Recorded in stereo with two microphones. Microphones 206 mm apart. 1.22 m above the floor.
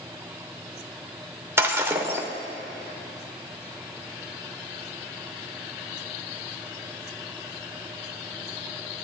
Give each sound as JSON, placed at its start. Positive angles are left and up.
{"t": 1.6, "sound": "breaking glass", "side_deg": -10, "distance_m": 1.2}